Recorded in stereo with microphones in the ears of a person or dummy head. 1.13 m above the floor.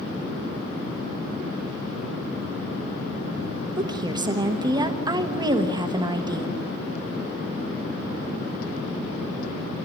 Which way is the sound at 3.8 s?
25° right (ahead or behind).